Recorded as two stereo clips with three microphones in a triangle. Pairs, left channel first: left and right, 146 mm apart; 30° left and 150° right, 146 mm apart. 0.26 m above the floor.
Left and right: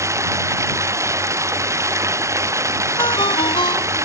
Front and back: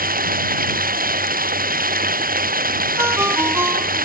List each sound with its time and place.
0.0 s running water: 160° right
3.0 s a ringtone: 140° left